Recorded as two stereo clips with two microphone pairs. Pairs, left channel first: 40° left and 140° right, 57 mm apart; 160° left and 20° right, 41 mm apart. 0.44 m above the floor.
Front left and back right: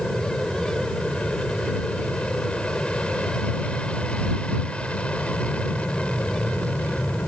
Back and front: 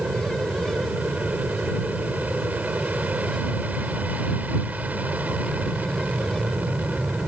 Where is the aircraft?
25° right; by 7.3 s 15° right.